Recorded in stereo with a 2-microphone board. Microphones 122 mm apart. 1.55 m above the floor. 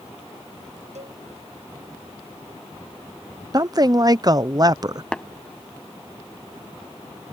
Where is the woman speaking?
35° right (ahead or behind).